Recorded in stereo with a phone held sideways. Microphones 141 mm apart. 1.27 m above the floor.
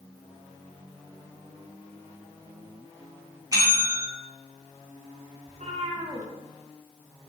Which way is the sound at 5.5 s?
60° right (ahead or behind).